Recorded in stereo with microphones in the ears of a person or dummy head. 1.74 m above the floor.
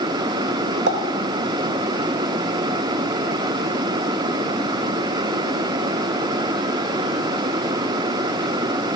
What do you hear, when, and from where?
0.9 s a pop: 70° right (ahead or behind), 1.4 m